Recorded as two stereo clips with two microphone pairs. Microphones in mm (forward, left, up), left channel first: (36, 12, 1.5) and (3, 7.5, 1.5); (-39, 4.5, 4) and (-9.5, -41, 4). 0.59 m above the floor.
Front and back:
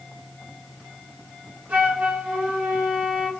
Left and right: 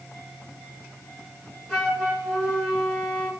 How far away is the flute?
About 2 m.